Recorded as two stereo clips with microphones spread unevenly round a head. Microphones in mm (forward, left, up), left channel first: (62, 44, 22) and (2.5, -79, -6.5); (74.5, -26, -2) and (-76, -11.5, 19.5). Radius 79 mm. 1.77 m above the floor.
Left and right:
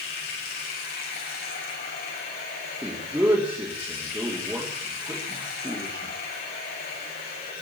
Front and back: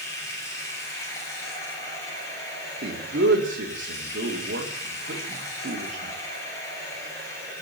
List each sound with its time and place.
0.0 s running water: 70° left, 7 m
2.8 s a man speaking: 165° left, 4 m